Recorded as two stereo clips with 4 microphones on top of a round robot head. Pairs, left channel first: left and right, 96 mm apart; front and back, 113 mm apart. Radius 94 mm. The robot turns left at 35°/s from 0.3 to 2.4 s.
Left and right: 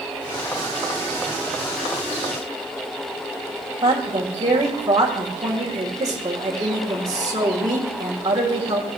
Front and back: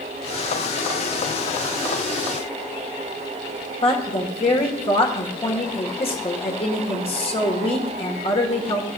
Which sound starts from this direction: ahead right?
A woman speaking, at 3.8 s.